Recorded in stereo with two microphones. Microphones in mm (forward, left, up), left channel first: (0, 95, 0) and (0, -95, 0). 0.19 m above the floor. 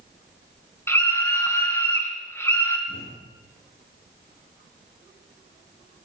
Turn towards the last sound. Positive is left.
turn(degrees=75)  # may be behind; listen again after turning